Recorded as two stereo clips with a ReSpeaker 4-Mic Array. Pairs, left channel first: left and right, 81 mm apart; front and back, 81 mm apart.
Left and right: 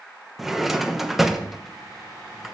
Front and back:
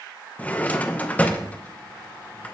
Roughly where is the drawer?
Ahead.